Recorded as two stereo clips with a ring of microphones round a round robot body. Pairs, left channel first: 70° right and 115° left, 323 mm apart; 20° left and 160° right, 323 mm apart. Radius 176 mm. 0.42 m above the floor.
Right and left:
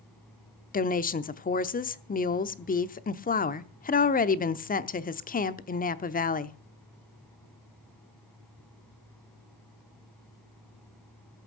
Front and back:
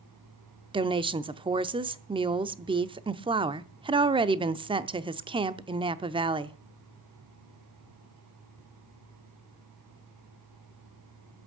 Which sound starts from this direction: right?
A woman speaking, at 0.7 s.